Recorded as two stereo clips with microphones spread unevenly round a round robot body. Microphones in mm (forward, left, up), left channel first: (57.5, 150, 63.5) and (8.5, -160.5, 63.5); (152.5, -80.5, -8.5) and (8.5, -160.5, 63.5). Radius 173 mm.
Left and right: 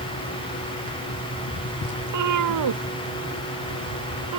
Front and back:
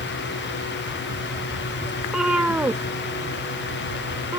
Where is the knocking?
No knocking in this recording.